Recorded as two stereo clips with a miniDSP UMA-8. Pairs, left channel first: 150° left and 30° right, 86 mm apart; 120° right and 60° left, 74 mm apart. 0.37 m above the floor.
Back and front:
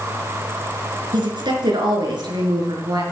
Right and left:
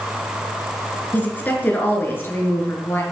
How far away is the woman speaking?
About 4.5 m.